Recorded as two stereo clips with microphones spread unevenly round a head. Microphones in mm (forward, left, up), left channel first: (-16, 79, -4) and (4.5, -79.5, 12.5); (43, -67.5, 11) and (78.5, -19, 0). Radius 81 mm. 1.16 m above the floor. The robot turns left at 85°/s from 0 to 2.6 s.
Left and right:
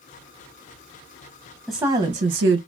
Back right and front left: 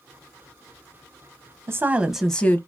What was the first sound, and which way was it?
A woman speaking, 5° left.